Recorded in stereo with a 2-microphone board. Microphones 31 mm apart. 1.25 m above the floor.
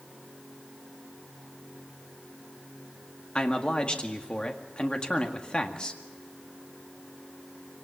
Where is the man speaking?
35° left (ahead or behind), 1.9 m.